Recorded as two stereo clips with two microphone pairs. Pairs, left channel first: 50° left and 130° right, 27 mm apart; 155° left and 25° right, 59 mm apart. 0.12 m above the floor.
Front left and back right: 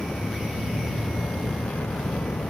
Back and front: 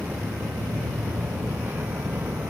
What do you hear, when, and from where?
0.0 s a vehicle: 35° left; by 2.5 s 30° left